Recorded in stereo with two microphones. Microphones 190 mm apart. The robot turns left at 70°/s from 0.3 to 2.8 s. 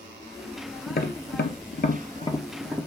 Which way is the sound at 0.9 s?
45° left (ahead or behind).